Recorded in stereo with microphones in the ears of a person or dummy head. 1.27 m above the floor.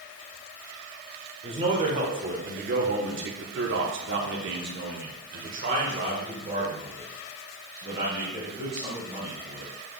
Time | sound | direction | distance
1.4 | a man speaking | 30° right (ahead or behind) | 1.6 m